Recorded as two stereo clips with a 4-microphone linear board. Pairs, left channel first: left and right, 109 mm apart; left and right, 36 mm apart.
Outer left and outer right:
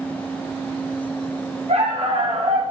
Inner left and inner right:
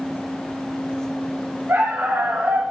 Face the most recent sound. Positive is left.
turn(degrees=-80)